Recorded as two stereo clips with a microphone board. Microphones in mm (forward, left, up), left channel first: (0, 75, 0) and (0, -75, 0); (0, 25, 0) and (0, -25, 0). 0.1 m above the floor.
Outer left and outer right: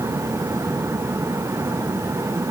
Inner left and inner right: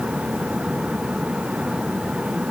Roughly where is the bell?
I don't hear a bell.